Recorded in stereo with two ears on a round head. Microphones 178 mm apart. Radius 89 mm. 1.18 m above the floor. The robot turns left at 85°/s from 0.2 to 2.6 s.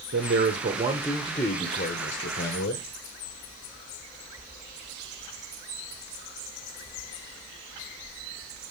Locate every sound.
0.1 s a man speaking: 100° right, 1.1 m; by 2.9 s 60° left, 1.1 m